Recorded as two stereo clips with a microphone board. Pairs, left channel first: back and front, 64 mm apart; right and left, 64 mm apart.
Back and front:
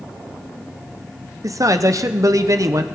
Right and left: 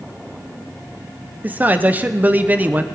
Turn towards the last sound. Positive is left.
turn(degrees=30)